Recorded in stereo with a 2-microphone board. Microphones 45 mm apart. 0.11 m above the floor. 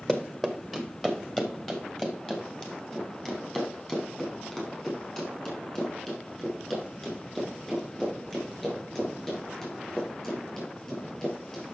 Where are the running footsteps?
10° left (ahead or behind), 1.5 m; by 11.7 s 15° left (ahead or behind), 8 m.